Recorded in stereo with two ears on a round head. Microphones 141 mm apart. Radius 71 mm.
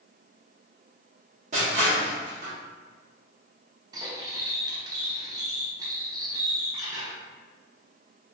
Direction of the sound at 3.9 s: 20° right (ahead or behind).